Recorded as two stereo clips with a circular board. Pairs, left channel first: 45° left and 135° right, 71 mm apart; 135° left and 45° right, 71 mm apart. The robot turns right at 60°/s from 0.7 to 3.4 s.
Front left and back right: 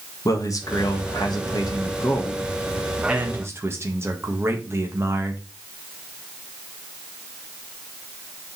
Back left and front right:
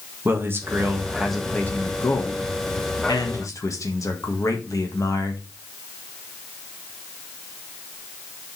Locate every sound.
0.2 s a man speaking: 10° left, 1.7 m; by 5.4 s 175° left, 1.7 m